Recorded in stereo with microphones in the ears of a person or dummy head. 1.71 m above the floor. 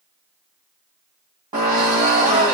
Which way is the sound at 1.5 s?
25° right (ahead or behind).